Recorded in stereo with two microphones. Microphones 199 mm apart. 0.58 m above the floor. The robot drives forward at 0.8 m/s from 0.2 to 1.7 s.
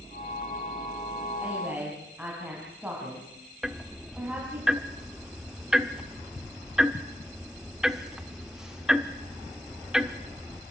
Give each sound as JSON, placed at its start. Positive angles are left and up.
{"t": 1.4, "sound": "a woman speaking", "side_deg": -10, "distance_m": 3.5}
{"t": 3.6, "sound": "ticking", "side_deg": -5, "distance_m": 0.9}